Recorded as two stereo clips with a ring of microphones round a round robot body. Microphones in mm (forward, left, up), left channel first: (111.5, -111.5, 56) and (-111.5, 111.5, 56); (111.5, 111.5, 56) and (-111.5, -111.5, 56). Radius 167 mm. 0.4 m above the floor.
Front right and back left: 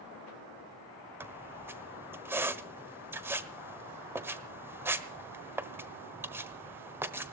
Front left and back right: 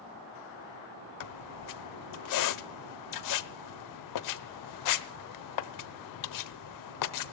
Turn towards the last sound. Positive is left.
turn(degrees=55)